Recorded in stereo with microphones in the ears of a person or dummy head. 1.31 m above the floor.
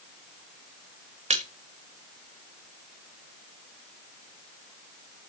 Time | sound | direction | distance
1.3 | a splash | 35° right (ahead or behind) | 1.5 m